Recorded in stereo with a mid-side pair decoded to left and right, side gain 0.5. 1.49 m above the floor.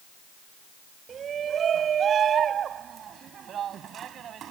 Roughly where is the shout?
Ahead right.